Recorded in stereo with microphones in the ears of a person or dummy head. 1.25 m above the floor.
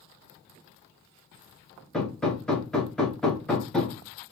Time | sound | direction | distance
1.9 | hammering | 5° left (ahead or behind) | 1.2 m